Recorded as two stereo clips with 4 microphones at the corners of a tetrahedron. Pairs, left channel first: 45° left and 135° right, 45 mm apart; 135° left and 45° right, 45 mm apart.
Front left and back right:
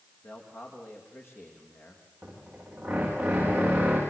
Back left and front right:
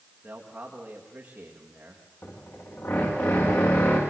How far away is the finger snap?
No finger snap in this recording.